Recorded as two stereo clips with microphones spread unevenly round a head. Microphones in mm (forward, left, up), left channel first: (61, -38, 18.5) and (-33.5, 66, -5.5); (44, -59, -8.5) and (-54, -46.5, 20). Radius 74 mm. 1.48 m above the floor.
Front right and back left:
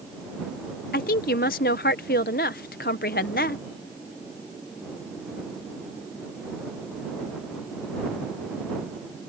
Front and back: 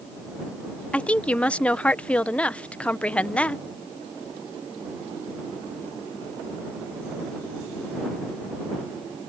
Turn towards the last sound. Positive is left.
turn(degrees=-80)